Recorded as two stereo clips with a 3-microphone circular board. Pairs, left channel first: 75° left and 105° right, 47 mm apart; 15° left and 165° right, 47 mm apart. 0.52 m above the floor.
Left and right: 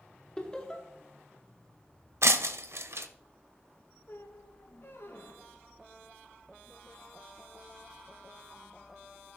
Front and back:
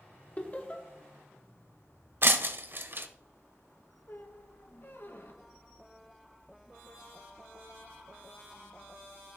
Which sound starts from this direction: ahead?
Laughter, at 0.4 s.